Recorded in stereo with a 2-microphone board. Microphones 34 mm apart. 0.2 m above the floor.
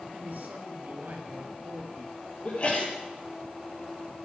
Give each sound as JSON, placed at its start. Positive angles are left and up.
{"t": 0.1, "sound": "a man speaking", "side_deg": -60, "distance_m": 3.0}
{"t": 2.5, "sound": "a sneeze", "side_deg": 40, "distance_m": 5.0}